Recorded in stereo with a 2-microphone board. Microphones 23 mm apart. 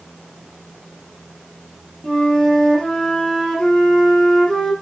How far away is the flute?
About 6.5 m.